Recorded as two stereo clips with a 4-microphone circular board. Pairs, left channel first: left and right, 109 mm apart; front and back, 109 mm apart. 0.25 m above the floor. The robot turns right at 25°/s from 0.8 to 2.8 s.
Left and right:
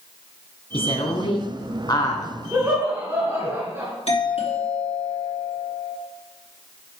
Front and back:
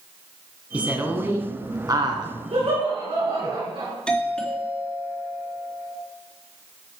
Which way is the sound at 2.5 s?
160° right.